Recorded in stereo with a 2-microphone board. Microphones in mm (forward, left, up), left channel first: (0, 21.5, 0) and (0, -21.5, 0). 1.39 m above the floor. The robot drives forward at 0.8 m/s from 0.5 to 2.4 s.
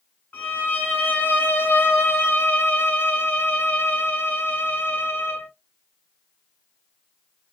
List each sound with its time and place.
0.3 s a violin: 35° left (ahead or behind), 1.8 m; by 5.5 s 60° left (ahead or behind), 1.2 m